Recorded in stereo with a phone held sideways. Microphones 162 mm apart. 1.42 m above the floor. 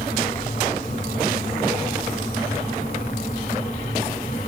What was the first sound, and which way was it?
A fan, 60° left (ahead or behind).